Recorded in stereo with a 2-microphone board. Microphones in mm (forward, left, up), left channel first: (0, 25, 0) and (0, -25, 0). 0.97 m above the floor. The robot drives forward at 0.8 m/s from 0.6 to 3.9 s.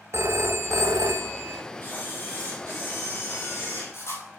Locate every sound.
0.1 s a phone ringing: 65° right (ahead or behind), 0.7 m; by 1.6 s 55° right (ahead or behind), 0.8 m
1.8 s a camera shutter: 45° left (ahead or behind), 4.5 m; by 4.2 s 65° left (ahead or behind), 3 m